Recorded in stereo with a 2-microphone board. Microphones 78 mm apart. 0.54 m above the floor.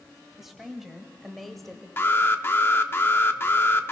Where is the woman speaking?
5° right (ahead or behind), 3.5 m; by 1.9 s 5° left (ahead or behind), 2 m.